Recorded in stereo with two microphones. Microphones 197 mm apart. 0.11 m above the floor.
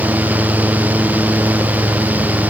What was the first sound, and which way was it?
Only background noise.